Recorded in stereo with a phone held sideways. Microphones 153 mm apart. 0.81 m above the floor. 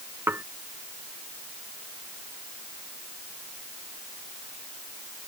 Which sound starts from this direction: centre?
Dishes clattering, at 0.3 s.